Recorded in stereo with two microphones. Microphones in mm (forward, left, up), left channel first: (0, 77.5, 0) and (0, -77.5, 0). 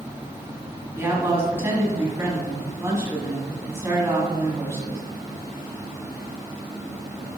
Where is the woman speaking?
15° right (ahead or behind), 1.4 m.